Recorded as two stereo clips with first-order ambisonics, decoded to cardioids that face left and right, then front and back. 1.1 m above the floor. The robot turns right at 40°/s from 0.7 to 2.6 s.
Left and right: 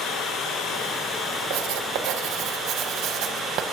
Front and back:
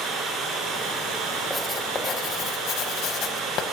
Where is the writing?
90° right, 1.0 m; by 3.6 s 45° right, 1.0 m.